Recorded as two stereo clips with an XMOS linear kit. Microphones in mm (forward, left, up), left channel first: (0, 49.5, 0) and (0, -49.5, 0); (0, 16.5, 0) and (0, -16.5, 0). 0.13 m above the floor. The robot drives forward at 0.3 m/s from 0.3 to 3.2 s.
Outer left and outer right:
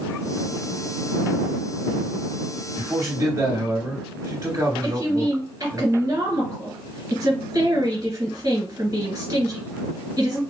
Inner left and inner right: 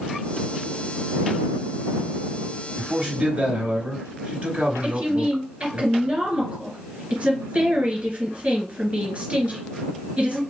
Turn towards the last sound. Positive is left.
turn(degrees=-35)  # may be behind; listen again after turning